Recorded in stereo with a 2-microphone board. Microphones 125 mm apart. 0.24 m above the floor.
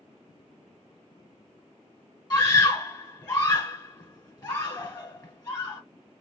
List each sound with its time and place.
2.3 s a scream: 30° left (ahead or behind), 2 m